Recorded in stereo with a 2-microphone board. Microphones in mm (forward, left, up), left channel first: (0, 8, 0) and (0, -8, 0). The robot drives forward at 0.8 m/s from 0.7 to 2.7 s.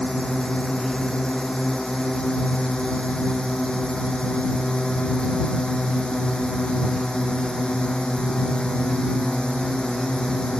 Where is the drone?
60° left (ahead or behind); by 10.6 s 65° left (ahead or behind).